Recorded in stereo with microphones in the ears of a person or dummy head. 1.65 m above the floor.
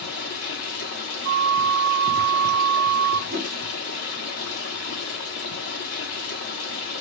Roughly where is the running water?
Left.